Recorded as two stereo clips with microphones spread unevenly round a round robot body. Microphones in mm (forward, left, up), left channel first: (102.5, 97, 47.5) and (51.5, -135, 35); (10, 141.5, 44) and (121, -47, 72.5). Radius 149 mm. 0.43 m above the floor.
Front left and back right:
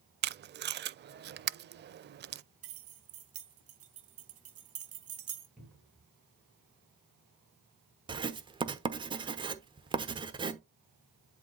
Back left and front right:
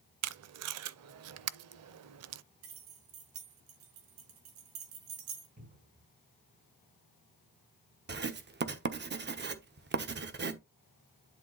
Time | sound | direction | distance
0.2 | tape being pulled | 50° right | 0.5 m
2.6 | keys jangling | 85° right | 1.9 m
5.6 | a cupboard door | 15° right | 4.5 m
8.1 | writing | 45° right | 1.2 m